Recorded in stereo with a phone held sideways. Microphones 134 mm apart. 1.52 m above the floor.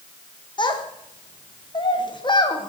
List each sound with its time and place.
0.6 s a child speaking: 35° left (ahead or behind), 0.8 m